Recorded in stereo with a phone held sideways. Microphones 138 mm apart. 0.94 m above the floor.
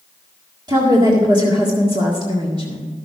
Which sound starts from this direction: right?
A woman speaking, at 0.7 s.